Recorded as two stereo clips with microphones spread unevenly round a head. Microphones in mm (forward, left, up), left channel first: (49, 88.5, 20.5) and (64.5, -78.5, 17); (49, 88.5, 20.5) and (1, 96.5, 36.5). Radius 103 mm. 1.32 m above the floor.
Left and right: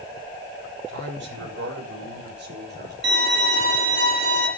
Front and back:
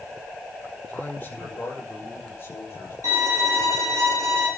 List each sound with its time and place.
0.9 s a man speaking: 85° right, 6.5 m; by 2.9 s 65° right, 6 m
3.0 s a violin: 125° right, 6 m